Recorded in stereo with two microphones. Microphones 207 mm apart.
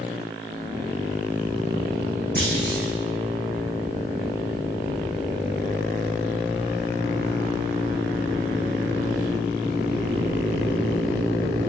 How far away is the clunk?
About 2.5 m.